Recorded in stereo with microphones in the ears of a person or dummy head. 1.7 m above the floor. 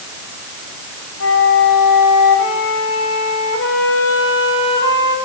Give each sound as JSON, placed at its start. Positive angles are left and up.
{"t": 1.2, "sound": "a flute", "side_deg": 80, "distance_m": 5.5}